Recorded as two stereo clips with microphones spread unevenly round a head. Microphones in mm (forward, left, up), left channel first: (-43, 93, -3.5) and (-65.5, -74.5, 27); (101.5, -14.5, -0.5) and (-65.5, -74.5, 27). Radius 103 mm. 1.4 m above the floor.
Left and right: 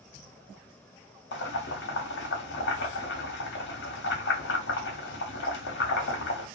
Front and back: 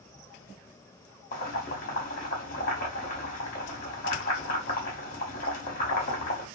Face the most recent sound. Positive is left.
turn(degrees=65)